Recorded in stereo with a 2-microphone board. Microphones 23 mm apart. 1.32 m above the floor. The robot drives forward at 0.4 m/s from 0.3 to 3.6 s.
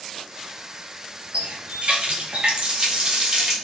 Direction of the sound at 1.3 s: 60° right (ahead or behind).